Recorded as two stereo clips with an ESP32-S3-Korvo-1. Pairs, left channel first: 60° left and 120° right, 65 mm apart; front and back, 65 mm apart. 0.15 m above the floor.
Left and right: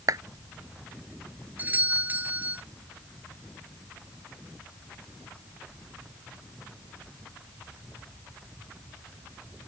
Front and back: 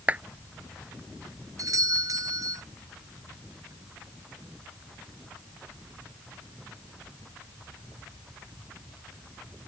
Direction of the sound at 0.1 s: 120° right.